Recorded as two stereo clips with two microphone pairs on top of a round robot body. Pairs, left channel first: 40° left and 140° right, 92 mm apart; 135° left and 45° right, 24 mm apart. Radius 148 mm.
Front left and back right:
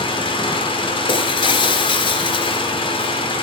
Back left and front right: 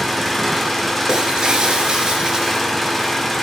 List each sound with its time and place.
0.0 s an engine running: 50° left, 3 m
1.1 s breaking glass: 5° left, 1.7 m